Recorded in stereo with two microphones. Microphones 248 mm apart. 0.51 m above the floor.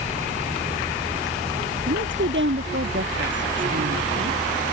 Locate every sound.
1.9 s a woman speaking: 50° right (ahead or behind)